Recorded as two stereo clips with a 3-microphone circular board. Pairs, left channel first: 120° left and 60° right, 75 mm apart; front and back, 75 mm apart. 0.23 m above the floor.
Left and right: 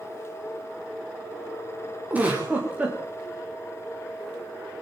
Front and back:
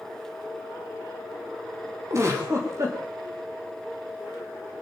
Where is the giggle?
130° right, 7.5 m.